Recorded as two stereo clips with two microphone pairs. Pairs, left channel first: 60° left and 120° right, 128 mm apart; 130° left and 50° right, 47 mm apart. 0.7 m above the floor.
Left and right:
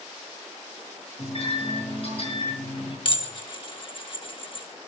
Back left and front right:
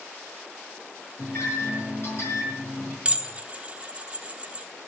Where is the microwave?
100° left, 6.5 m.